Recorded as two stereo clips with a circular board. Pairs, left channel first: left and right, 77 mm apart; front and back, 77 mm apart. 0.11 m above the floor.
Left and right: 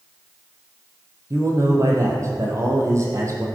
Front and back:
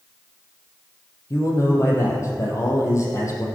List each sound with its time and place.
1.3 s a man speaking: 45° right, 3.5 m